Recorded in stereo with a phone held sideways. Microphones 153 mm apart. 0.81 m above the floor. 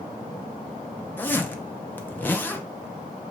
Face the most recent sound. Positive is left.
turn(degrees=15)  # may be behind; listen again after turning